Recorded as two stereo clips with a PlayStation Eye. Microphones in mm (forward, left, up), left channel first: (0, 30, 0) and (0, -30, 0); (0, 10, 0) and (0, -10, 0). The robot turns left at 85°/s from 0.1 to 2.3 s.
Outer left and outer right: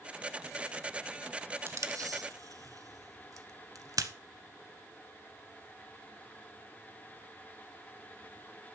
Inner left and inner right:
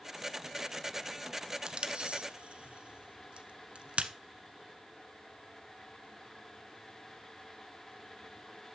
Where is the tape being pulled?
45° right (ahead or behind), 1.1 m; by 4.1 s 80° right, 1.1 m.